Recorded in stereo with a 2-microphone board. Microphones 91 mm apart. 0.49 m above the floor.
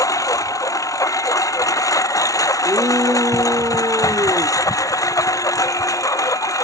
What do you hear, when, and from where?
0.0 s a lawn mower: 40° left (ahead or behind)
2.6 s a shout: 40° right (ahead or behind)